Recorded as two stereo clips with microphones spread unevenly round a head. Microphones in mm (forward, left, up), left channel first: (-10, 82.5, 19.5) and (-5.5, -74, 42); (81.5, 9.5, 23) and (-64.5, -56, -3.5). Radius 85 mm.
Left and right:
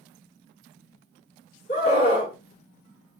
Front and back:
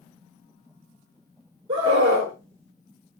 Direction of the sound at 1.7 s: 140° left.